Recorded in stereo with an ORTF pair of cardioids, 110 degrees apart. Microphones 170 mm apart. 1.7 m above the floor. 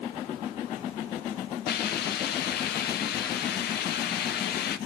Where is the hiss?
70° left, 0.9 m.